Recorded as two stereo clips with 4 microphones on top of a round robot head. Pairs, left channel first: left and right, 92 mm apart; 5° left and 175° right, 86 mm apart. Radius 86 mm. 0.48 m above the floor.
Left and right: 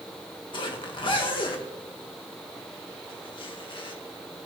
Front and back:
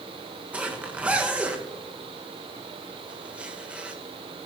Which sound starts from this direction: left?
A zipper, at 0.5 s.